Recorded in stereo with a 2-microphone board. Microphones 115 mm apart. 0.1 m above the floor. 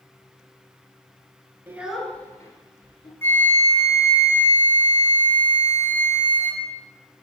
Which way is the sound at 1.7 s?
20° right (ahead or behind).